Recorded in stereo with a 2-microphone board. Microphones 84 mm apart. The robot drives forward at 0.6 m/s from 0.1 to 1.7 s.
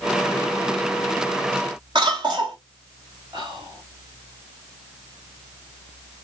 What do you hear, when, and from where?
1.9 s a cough: 70° right (ahead or behind), 1.3 m
3.3 s whispering: 55° right (ahead or behind), 3.5 m